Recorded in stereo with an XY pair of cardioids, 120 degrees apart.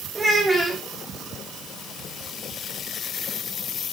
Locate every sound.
0.1 s a child speaking: 5° right, 1.3 m